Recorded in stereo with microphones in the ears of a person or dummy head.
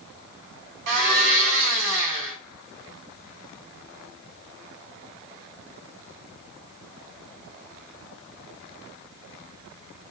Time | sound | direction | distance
0.9 | a blender | 70° right (ahead or behind) | 5 m